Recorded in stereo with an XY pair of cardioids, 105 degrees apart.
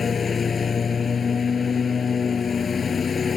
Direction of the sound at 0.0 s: 40° left.